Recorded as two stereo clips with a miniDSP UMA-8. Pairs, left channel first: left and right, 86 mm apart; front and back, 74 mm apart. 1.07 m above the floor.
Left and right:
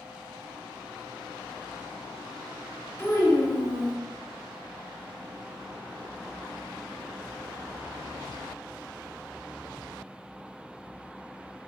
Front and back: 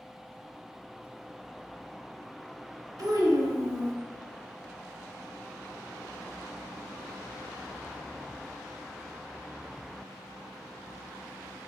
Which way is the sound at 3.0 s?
150° left.